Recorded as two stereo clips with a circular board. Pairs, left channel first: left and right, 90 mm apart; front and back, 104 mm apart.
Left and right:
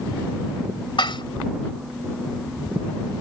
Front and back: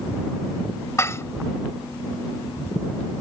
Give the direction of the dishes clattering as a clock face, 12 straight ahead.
10 o'clock.